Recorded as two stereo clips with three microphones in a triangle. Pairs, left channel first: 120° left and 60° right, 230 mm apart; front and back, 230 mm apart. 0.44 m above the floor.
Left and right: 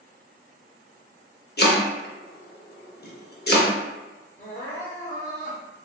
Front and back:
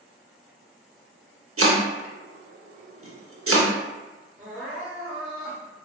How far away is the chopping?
About 0.6 m.